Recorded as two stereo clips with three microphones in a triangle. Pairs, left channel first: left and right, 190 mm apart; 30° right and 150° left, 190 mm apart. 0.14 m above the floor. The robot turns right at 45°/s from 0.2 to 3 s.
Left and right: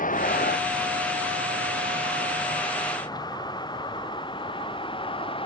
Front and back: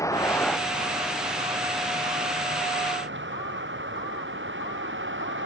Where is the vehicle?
45° left; by 5.5 s 150° left.